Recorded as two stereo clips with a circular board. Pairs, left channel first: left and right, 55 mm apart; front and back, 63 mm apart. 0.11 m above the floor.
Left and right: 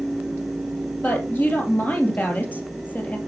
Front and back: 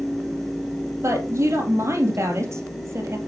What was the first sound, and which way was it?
A woman speaking, 145° left.